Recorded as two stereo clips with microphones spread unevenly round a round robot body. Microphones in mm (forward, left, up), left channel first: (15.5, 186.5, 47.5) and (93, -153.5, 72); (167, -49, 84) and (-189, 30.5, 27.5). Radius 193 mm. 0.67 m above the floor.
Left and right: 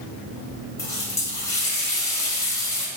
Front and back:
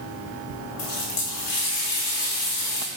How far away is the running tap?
About 2 m.